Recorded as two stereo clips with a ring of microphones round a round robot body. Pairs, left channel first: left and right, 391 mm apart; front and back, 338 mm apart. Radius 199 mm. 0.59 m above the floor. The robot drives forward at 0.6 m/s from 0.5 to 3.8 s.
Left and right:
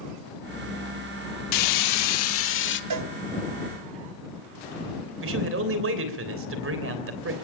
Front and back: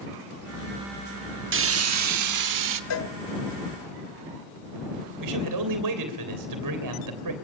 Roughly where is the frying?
Behind left.